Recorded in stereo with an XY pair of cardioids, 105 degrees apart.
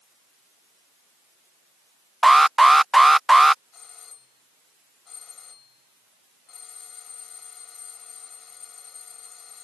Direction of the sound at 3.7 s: 45° left.